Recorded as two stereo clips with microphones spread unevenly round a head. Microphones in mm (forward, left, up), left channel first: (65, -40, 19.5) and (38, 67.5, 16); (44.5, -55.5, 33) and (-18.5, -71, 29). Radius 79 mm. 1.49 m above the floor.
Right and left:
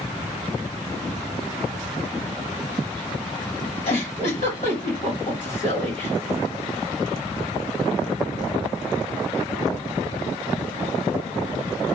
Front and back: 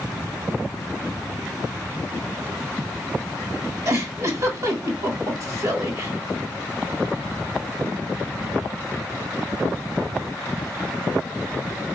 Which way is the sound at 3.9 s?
130° right.